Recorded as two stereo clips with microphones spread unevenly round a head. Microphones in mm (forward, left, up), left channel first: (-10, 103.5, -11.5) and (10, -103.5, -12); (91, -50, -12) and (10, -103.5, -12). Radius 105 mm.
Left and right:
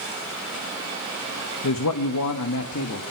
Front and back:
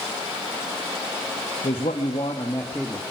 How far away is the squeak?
No squeak in this recording.